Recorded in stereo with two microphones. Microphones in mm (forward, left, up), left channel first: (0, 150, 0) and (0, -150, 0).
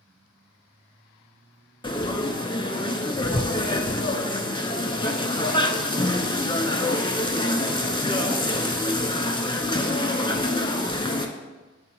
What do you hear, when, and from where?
1.8 s frying: 15° left (ahead or behind), 0.5 m